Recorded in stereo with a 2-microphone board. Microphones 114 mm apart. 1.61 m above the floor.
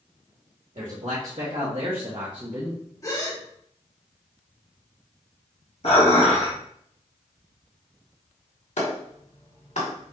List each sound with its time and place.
0.8 s a man speaking: 85° right, 1.7 m; by 2.8 s 20° right (ahead or behind), 1.0 m
3.0 s a gasp: 30° left (ahead or behind), 1.2 m
5.8 s dishes clattering: 60° left (ahead or behind), 1.5 m
8.8 s a clap: 75° left (ahead or behind), 1.8 m